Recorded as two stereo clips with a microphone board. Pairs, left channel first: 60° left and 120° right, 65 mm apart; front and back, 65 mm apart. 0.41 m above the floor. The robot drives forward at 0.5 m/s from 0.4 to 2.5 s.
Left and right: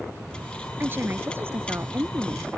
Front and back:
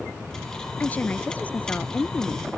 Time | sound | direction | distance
0.8 | a woman speaking | 65° right | ?